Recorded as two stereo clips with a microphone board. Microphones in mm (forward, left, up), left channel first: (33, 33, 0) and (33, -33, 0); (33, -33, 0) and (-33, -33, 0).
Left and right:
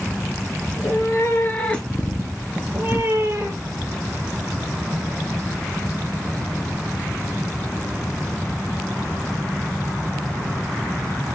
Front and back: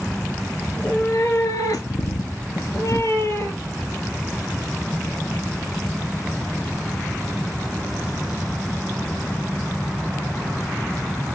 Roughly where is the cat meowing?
Ahead left.